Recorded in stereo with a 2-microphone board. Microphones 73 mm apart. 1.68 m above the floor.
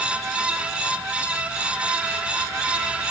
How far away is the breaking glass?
I don't hear breaking glass.